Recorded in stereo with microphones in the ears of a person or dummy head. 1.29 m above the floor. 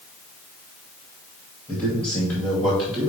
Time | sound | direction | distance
1.7 | a man speaking | 15° right (ahead or behind) | 2 m